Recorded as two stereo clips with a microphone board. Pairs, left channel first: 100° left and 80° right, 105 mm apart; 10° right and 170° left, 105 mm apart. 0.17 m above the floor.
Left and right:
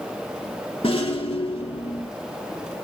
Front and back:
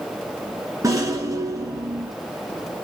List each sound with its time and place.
0.8 s a rattle: 120° left, 1.6 m